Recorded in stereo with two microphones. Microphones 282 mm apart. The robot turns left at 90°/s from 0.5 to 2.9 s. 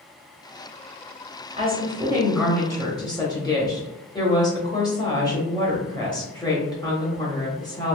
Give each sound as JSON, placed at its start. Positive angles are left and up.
{"t": 1.6, "sound": "a woman speaking", "side_deg": -20, "distance_m": 1.0}